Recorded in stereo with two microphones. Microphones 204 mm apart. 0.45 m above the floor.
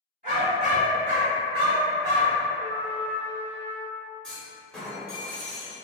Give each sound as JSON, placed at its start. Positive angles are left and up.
{"t": 0.2, "sound": "a dog barking", "side_deg": -45, "distance_m": 1.5}
{"t": 2.5, "sound": "a trumpet", "side_deg": 25, "distance_m": 0.8}
{"t": 4.2, "sound": "a clunk", "side_deg": 5, "distance_m": 0.8}